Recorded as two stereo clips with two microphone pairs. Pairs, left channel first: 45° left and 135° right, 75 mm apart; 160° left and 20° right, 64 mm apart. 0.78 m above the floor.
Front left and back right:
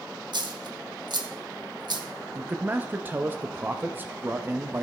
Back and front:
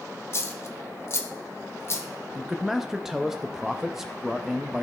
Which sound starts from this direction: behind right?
A dropped coin, at 0.3 s.